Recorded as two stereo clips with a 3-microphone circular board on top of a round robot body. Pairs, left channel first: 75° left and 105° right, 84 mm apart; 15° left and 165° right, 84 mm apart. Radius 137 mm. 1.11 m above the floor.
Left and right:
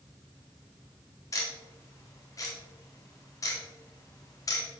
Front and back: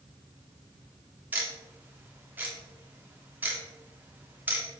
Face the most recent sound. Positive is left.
turn(degrees=125)